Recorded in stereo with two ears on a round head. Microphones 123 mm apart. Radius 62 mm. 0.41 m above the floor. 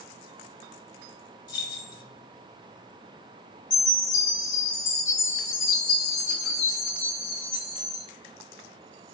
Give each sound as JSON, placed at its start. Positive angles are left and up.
{"t": 1.5, "sound": "keys jangling", "side_deg": 30, "distance_m": 1.1}
{"t": 3.7, "sound": "a chime", "side_deg": 65, "distance_m": 1.8}